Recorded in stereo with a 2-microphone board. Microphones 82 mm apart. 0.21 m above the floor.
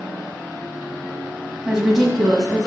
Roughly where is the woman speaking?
Centre.